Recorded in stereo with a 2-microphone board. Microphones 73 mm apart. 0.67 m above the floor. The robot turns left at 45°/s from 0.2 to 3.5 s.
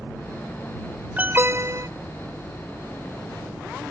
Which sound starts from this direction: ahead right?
An alarm, at 1.2 s.